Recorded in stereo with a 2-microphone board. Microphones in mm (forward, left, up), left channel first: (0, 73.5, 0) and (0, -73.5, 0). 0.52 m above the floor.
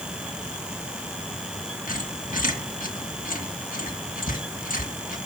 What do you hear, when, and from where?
1.9 s a squeak: 65° left (ahead or behind), 2.5 m